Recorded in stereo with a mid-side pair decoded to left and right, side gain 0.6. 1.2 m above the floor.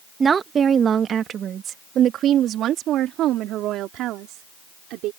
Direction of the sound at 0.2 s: 30° right.